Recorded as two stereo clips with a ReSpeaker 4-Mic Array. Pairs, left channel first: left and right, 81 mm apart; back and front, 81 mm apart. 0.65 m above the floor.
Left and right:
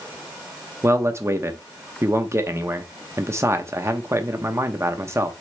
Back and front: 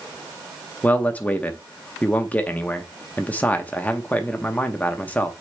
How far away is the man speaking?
About 0.7 m.